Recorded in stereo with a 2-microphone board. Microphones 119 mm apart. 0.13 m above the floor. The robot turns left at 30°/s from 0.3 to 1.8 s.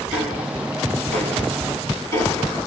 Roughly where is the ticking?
Centre.